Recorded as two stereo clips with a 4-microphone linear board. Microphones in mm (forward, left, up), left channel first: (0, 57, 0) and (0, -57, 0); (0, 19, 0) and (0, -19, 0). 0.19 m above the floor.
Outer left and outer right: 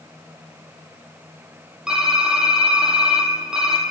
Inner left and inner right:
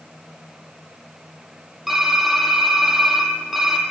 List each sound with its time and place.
1.9 s typing on a keyboard: 5° right (ahead or behind), 1.8 m